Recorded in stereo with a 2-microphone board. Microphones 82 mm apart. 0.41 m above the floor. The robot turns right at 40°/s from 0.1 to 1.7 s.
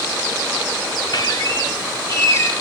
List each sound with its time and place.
1.1 s a squeak: 60° left (ahead or behind), 1.5 m; by 2.5 s 40° left (ahead or behind), 1.5 m